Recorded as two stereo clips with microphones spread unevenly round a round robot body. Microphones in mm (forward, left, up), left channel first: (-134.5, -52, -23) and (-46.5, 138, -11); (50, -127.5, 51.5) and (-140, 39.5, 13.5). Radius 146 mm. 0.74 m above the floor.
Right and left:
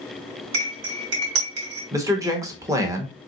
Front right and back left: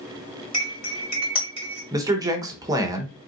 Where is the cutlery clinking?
35° left, 1.5 m.